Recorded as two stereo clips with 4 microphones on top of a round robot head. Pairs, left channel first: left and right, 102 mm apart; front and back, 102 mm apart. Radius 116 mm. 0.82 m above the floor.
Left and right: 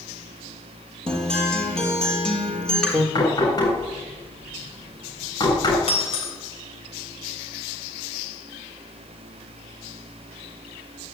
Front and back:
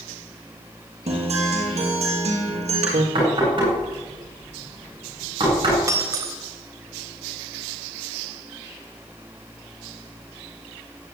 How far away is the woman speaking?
No woman speaking in this recording.